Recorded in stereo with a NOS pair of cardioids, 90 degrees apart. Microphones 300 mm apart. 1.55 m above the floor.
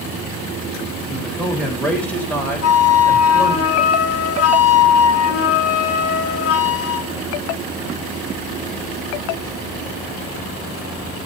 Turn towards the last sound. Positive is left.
turn(degrees=50)